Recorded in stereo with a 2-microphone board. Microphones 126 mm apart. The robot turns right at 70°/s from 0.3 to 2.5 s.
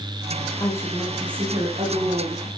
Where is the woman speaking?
145° left, 8.5 m; by 2.5 s 80° right, 8.5 m.